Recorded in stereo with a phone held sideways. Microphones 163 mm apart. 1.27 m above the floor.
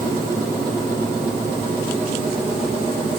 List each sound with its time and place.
Only background noise.